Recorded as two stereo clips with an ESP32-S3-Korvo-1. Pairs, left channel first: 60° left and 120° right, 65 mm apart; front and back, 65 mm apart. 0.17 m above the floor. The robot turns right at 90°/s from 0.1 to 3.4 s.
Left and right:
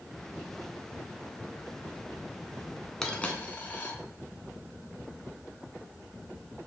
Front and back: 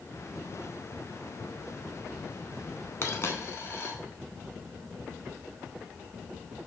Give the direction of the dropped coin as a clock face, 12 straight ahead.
1 o'clock.